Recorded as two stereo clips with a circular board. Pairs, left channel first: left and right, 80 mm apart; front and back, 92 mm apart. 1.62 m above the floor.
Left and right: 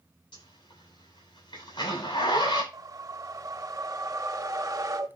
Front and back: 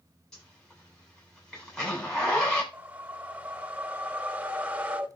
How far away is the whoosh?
About 1.0 m.